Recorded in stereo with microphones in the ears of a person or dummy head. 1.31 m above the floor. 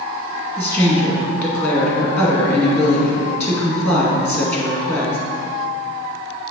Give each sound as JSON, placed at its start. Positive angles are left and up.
{"t": 0.6, "sound": "a woman speaking", "side_deg": 10, "distance_m": 2.0}